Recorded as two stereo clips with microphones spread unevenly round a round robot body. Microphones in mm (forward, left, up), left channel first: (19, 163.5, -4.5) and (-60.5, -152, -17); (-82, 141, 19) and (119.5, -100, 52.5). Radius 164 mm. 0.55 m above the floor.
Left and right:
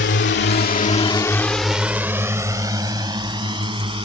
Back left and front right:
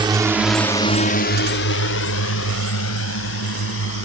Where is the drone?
25° left; by 4.1 s straight behind.